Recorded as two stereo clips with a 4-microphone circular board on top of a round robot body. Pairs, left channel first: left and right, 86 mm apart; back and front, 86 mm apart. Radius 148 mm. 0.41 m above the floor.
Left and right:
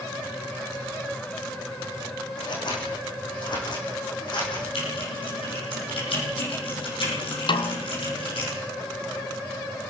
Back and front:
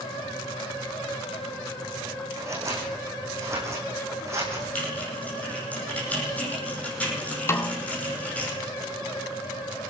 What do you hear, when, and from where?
2.4 s scissors: 55° left, 8 m
4.8 s typing on a keyboard: 105° left, 9.5 m
7.5 s a snare drum: 120° left, 1.4 m